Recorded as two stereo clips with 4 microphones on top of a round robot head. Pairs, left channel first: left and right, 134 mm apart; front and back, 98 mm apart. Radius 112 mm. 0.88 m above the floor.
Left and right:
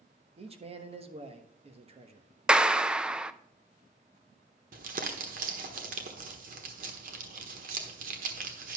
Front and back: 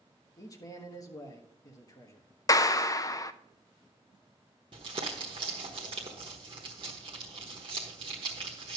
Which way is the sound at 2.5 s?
10° right.